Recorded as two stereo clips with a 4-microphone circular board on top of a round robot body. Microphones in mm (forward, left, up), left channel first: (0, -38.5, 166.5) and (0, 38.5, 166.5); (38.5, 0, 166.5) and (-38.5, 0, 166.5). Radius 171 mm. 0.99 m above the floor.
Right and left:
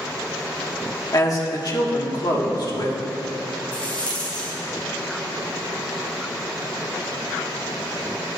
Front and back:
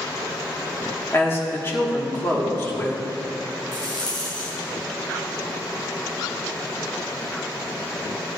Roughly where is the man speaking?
Ahead right.